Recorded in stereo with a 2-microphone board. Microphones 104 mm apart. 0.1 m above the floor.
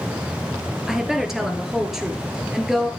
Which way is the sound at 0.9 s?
5° right (ahead or behind).